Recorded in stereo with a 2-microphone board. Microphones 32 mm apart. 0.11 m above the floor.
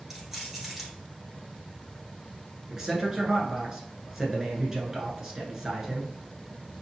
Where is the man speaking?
20° right (ahead or behind), 1.1 m.